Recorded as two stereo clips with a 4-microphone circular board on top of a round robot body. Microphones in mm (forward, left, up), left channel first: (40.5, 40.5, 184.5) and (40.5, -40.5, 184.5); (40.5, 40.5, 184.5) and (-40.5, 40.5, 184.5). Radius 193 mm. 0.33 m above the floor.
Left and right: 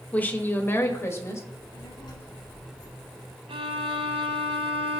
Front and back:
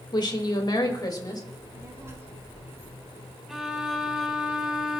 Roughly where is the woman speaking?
Ahead.